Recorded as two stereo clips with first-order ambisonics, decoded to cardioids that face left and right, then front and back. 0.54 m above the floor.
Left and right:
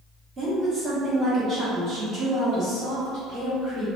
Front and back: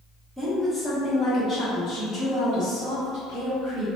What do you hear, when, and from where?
0.4 s a woman speaking: 100° right, 0.8 m; by 3.9 s 30° right, 2 m